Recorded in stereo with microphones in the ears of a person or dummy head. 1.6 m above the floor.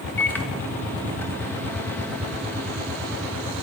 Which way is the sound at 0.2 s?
10° left (ahead or behind).